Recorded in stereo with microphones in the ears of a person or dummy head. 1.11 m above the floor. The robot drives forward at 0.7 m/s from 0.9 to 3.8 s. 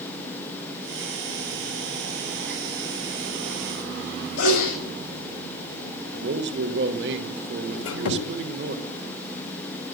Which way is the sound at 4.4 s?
80° left.